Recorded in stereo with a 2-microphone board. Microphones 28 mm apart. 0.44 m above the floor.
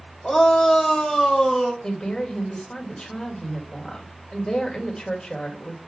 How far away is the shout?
About 1.4 m.